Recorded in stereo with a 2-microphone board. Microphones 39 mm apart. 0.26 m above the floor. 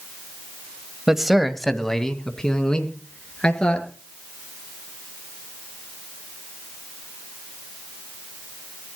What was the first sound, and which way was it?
A man speaking, 15° right (ahead or behind).